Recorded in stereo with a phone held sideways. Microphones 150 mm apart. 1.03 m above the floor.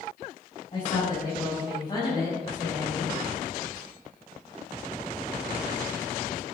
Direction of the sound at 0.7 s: 40° left (ahead or behind).